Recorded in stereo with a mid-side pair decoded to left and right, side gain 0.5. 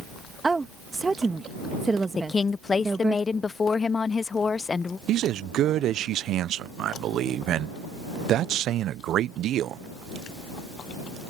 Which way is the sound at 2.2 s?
30° left.